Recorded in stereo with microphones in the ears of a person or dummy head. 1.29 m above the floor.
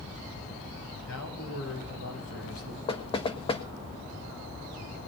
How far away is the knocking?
About 1.4 m.